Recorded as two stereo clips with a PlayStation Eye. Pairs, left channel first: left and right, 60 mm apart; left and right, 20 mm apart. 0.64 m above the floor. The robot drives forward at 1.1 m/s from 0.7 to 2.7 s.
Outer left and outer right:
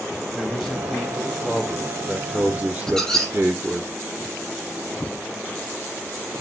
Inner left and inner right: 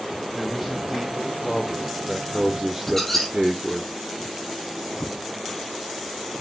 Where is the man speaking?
10° right (ahead or behind), 3 m; by 3.9 s 35° right (ahead or behind), 1.1 m.